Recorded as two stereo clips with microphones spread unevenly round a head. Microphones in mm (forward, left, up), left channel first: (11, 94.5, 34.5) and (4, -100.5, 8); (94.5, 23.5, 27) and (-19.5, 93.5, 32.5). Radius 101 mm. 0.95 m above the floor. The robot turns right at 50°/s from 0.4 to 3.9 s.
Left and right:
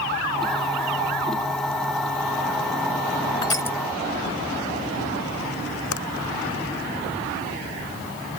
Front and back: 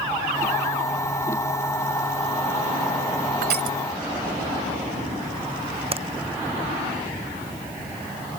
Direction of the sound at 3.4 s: 155° left.